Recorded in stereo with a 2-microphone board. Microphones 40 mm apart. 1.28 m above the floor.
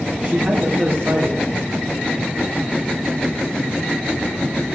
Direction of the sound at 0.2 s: 50° right (ahead or behind).